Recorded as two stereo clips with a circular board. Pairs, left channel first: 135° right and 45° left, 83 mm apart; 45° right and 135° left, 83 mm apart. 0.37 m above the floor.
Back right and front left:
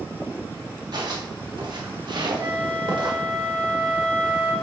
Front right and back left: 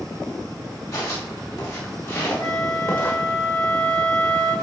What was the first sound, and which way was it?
Footsteps, 5° left.